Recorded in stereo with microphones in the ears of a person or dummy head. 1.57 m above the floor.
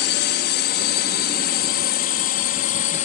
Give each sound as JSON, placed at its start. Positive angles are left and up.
{"t": 0.0, "sound": "a drone", "side_deg": 55}